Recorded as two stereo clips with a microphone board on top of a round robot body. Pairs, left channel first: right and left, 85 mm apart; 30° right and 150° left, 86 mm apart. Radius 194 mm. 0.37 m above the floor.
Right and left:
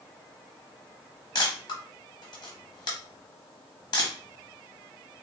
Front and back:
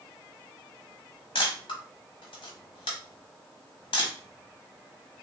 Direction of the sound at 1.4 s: 50° right.